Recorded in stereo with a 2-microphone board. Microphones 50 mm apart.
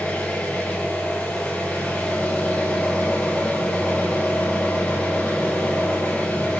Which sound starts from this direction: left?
An engine running, at 0.0 s.